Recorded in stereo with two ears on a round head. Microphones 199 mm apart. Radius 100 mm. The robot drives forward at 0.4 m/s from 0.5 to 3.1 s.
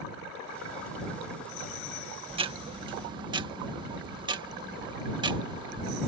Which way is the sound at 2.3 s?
30° right (ahead or behind).